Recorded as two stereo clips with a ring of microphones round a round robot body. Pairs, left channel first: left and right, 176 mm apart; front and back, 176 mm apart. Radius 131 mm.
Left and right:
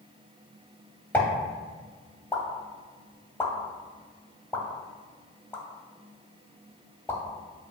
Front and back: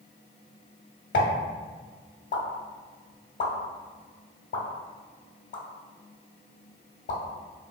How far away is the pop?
About 0.8 m.